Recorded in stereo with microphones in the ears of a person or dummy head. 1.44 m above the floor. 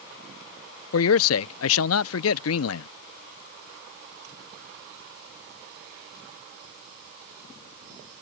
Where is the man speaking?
75° left (ahead or behind).